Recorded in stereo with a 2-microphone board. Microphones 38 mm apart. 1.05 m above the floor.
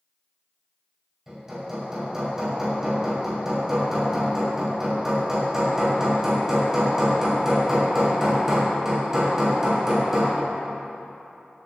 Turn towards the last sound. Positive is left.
turn(degrees=-15)  # may be behind; listen again after turning